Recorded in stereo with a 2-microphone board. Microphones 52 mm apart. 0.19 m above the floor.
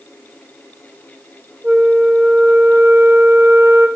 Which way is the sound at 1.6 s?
50° right (ahead or behind).